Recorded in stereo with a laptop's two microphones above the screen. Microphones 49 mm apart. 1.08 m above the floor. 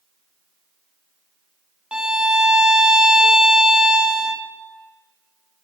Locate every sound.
1.9 s a violin: 15° right (ahead or behind), 0.7 m